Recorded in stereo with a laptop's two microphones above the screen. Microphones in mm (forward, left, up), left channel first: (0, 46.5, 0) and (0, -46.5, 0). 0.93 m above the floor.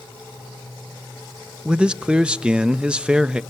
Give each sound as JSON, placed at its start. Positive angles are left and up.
{"t": 1.6, "sound": "a man speaking", "side_deg": -10, "distance_m": 0.5}